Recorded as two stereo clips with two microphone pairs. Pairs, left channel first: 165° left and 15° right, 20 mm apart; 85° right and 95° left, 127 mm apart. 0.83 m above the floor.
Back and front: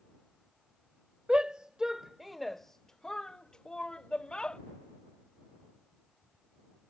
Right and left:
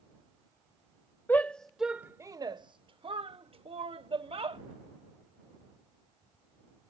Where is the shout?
20° right; by 4.6 s 130° left.